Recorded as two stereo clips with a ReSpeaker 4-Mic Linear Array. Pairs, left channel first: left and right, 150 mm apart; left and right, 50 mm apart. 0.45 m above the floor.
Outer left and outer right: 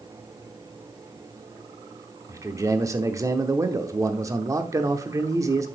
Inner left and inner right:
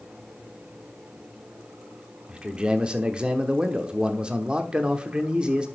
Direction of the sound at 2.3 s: 20° right (ahead or behind).